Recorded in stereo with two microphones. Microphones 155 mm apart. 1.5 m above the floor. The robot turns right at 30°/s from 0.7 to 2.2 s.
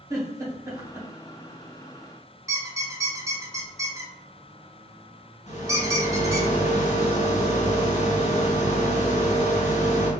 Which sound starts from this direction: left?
A rattle, at 5.5 s.